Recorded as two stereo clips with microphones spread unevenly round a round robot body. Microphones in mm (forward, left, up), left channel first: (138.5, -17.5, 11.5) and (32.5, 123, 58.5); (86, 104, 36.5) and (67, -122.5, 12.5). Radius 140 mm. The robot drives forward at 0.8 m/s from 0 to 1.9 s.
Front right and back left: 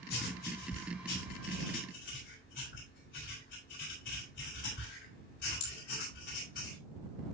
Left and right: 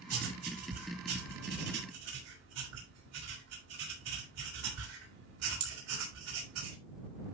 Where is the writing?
85° right, 5.5 m; by 6.8 s 100° right, 5.5 m.